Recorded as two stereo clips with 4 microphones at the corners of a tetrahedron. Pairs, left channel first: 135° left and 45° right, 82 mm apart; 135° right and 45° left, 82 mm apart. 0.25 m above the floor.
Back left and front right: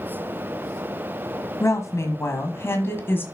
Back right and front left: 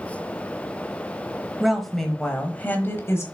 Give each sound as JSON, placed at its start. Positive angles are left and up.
{"t": 1.6, "sound": "a woman speaking", "azimuth_deg": 125, "distance_m": 1.4}